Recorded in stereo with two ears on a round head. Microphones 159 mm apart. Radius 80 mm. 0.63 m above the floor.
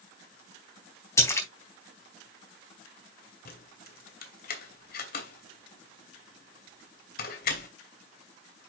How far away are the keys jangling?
About 2.5 m.